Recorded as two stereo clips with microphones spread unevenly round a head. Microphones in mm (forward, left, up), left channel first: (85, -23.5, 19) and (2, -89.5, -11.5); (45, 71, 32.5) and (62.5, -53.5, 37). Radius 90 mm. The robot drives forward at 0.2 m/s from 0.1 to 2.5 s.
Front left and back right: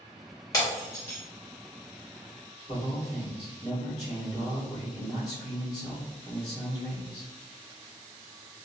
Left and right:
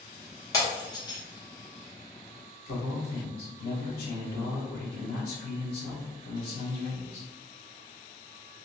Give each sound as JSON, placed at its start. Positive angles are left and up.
{"t": 0.5, "sound": "breaking glass", "azimuth_deg": 45, "distance_m": 1.0}
{"t": 2.7, "sound": "a man speaking", "azimuth_deg": 105, "distance_m": 1.0}